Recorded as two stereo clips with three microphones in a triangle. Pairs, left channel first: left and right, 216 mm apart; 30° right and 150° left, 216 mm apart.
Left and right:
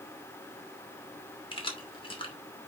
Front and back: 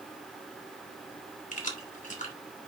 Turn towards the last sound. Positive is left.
turn(degrees=25)